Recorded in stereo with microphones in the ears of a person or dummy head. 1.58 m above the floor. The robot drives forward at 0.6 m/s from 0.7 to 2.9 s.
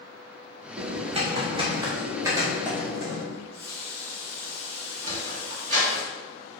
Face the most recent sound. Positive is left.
turn(degrees=-45)  # may be behind; listen again after turning